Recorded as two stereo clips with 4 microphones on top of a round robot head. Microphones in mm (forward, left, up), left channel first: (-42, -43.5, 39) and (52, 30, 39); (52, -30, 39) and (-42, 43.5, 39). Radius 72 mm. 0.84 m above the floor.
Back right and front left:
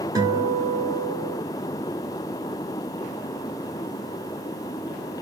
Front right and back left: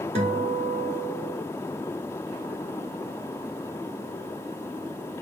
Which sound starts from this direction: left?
A guitar, at 0.1 s.